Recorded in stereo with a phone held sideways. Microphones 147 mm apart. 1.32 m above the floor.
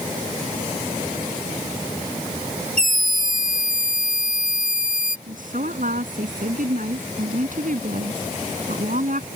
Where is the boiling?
No boiling in this recording.